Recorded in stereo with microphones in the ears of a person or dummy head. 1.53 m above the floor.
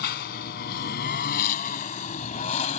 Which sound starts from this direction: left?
A lawn mower, at 0.0 s.